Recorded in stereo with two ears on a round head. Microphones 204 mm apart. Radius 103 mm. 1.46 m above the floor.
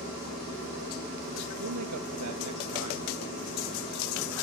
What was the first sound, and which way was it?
A man speaking, 80° right.